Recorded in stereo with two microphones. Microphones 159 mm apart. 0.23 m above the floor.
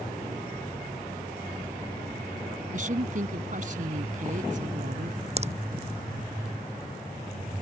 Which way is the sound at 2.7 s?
55° right (ahead or behind).